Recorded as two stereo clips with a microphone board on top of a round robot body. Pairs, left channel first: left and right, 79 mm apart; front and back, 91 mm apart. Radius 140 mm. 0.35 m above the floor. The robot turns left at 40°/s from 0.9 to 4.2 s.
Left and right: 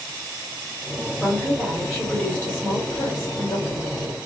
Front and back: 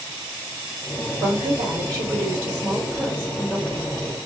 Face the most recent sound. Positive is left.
turn(degrees=75)